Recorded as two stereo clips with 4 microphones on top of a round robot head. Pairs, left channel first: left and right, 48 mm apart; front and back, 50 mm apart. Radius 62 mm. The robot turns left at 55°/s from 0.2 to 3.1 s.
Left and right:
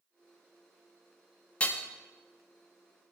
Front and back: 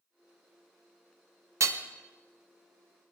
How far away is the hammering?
About 0.9 m.